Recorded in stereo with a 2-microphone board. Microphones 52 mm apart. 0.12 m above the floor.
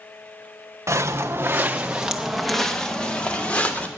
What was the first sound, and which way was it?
Footsteps, 70° right (ahead or behind).